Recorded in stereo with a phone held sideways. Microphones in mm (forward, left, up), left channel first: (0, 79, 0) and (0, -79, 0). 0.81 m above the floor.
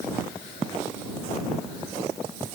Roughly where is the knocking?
No knocking in this recording.